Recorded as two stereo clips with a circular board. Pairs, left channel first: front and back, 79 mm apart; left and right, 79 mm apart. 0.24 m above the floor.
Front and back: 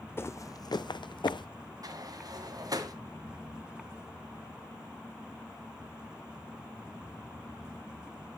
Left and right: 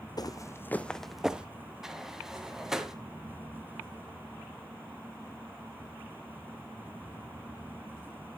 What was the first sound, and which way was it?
Footsteps, 60° left.